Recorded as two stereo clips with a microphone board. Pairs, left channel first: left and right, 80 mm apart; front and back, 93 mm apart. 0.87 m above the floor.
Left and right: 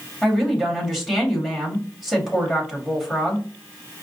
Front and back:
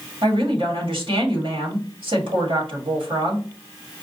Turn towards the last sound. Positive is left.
turn(degrees=-175)